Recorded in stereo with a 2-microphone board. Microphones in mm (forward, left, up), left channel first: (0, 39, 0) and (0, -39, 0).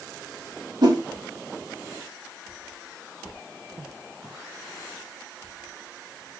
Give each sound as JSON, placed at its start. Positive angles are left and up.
{"t": 0.8, "sound": "a whoosh", "side_deg": -60, "distance_m": 1.1}